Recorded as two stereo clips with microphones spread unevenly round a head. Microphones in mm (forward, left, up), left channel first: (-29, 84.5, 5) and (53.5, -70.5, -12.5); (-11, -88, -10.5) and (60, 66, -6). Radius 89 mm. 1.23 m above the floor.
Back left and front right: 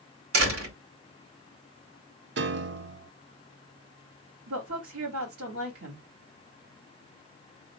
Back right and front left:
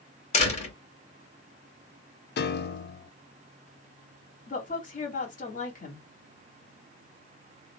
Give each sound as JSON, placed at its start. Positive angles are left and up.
{"t": 0.3, "sound": "a door slam", "azimuth_deg": -65, "distance_m": 2.5}
{"t": 2.4, "sound": "a piano", "azimuth_deg": -90, "distance_m": 0.6}
{"t": 4.5, "sound": "a woman speaking", "azimuth_deg": -75, "distance_m": 2.5}